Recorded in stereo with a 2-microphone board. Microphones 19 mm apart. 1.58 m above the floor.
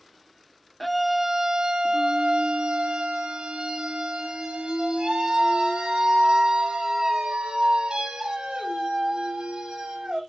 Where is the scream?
5° left (ahead or behind), 0.5 m; by 10.2 s 85° right, 5 m.